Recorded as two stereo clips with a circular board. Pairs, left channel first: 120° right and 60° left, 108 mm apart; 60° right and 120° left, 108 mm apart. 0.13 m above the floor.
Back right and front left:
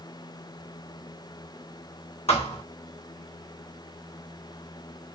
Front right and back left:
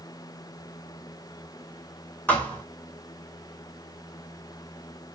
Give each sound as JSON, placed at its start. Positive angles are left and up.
{"t": 2.3, "sound": "a thud", "azimuth_deg": -135, "distance_m": 0.9}